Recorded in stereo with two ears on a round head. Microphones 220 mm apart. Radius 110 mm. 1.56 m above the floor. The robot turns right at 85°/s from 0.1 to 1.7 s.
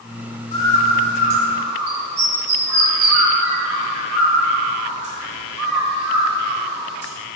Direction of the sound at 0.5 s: 25° left (ahead or behind).